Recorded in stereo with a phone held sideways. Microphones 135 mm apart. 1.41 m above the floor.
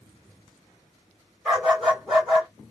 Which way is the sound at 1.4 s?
Centre (ahead or behind).